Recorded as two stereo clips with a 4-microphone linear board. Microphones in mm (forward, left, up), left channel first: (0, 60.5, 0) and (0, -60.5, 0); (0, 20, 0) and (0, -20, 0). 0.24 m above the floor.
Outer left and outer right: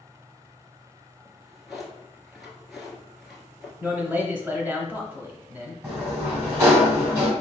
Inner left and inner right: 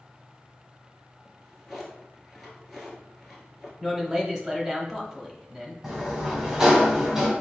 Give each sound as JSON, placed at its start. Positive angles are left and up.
{"t": 1.2, "sound": "a drawer", "side_deg": 0, "distance_m": 1.3}
{"t": 3.8, "sound": "a man speaking", "side_deg": -15, "distance_m": 1.0}
{"t": 5.8, "sound": "a sliding door", "side_deg": -20, "distance_m": 1.8}